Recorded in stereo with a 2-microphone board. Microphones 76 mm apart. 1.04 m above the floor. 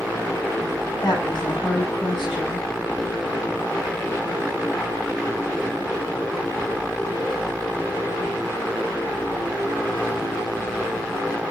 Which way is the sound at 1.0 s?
85° left.